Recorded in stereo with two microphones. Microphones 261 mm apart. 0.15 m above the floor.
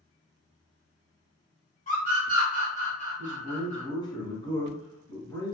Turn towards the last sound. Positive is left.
turn(degrees=15)  # may be behind; listen again after turning